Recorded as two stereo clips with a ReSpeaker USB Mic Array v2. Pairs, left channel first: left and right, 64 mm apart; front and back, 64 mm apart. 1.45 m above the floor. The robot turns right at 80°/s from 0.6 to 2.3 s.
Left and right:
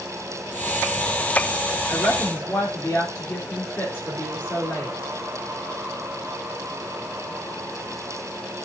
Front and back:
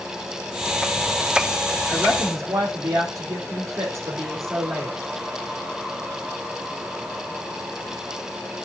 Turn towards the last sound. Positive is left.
turn(degrees=145)